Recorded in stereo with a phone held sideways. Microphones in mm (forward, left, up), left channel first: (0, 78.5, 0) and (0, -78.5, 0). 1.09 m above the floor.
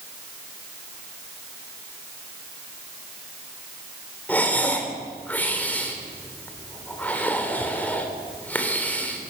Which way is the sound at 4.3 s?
10° left (ahead or behind).